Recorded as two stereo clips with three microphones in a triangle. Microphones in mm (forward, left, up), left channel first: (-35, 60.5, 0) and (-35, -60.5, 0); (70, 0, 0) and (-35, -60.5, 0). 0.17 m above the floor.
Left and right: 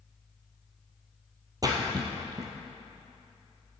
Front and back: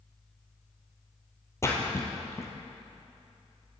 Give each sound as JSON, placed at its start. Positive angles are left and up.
{"t": 1.6, "sound": "a splash", "azimuth_deg": -35, "distance_m": 1.7}